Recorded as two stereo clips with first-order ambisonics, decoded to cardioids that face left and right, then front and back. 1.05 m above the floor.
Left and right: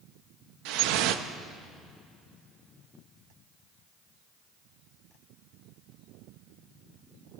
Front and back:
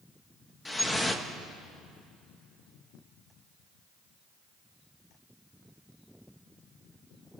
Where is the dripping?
80° right, 1.1 m.